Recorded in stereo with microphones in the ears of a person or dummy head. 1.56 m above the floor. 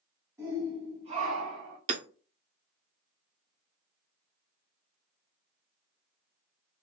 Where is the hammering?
35° right (ahead or behind), 0.6 m.